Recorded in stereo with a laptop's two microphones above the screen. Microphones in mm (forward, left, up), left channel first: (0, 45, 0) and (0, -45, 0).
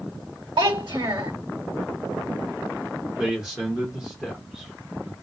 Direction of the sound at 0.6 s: 65° right (ahead or behind).